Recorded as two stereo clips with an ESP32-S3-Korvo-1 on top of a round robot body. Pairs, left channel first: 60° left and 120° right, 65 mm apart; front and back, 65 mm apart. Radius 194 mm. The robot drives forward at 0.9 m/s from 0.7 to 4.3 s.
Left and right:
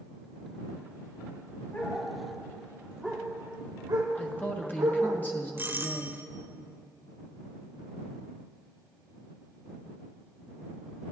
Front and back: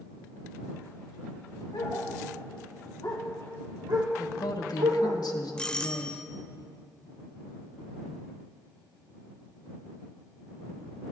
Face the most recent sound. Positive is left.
turn(degrees=-75)